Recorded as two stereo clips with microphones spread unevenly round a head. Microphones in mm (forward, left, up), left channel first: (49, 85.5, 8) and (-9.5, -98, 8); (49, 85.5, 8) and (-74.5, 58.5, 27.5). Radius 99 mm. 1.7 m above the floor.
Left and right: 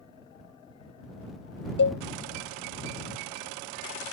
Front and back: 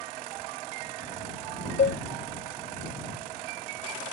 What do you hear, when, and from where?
1.8 s a cowbell: 40° left